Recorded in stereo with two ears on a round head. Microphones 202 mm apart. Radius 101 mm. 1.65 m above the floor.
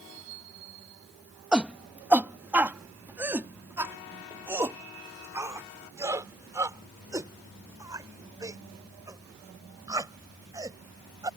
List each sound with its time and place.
1.5 s a shout: 5° right (ahead or behind); by 11.3 s 15° right (ahead or behind)